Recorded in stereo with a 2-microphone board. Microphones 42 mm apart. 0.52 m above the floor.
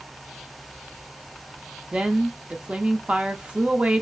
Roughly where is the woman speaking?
Right.